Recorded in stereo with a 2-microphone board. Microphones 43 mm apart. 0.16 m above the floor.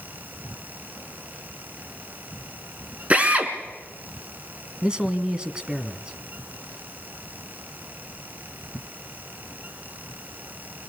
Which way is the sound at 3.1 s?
30° right (ahead or behind).